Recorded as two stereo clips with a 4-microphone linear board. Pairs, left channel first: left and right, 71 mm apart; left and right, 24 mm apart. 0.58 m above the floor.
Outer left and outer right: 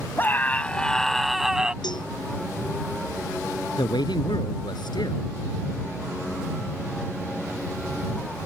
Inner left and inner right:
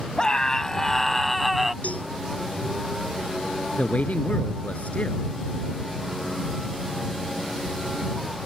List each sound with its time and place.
0.2 s a scream: 30° left (ahead or behind); by 1.7 s 10° right (ahead or behind)
1.8 s a cowbell: 85° left
3.8 s a man speaking: 80° left